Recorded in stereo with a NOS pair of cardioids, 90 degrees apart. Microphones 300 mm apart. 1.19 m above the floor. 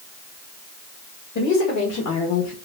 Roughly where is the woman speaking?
Left.